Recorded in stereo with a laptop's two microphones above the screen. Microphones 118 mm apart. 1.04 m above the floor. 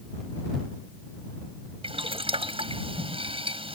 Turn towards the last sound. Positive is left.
turn(degrees=-55)  # may be behind; listen again after turning